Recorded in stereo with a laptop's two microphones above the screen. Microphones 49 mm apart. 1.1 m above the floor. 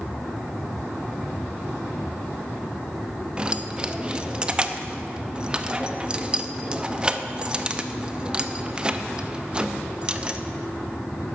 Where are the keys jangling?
20° right (ahead or behind), 0.7 m.